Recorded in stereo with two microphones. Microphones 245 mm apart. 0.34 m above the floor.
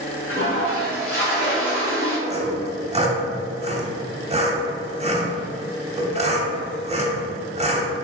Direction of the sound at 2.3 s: 25° right (ahead or behind).